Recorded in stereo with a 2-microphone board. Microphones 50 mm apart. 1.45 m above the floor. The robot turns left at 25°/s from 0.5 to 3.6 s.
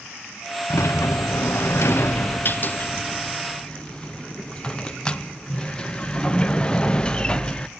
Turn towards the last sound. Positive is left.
turn(degrees=20)